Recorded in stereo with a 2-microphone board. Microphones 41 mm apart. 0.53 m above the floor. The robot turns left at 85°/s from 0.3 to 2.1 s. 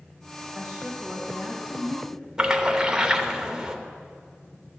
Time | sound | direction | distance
0.6 | a woman speaking | 135° right | 1.6 m
2.4 | a splash | 20° right (ahead or behind) | 0.8 m